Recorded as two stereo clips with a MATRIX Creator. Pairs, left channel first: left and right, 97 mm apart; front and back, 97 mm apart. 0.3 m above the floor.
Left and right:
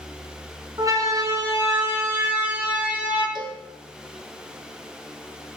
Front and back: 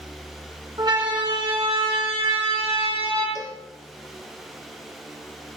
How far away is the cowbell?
About 3 m.